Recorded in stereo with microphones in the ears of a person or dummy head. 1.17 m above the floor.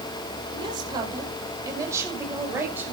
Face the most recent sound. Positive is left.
turn(degrees=-10)  # may be behind; listen again after turning